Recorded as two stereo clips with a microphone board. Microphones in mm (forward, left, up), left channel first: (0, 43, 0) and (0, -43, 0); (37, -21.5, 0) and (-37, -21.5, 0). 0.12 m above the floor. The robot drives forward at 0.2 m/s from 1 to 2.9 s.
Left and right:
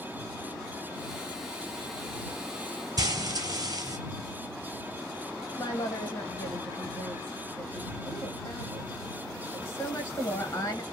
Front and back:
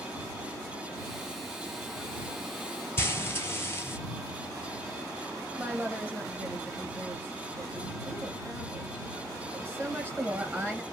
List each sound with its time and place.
3.0 s frying: 55° right, 0.8 m
5.6 s a woman speaking: 135° left, 1.3 m